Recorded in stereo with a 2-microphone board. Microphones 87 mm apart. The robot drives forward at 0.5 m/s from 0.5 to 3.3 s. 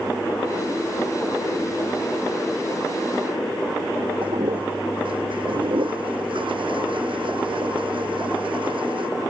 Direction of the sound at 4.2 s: 75° right (ahead or behind).